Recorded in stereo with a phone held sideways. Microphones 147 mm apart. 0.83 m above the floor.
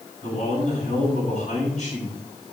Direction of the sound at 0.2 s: 55° left (ahead or behind).